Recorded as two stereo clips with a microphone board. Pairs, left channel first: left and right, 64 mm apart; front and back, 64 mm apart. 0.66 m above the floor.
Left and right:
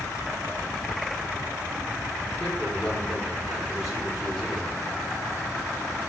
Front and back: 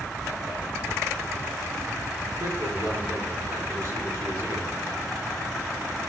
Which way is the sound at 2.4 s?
Straight behind.